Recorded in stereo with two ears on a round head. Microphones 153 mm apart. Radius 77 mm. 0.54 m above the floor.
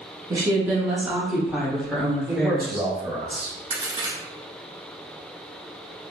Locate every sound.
0.3 s a woman speaking: 20° right (ahead or behind), 0.9 m; by 2.9 s 10° left (ahead or behind), 1.7 m
2.3 s a man speaking: 25° right (ahead or behind), 1.6 m
3.7 s a crack: 35° right (ahead or behind), 1.2 m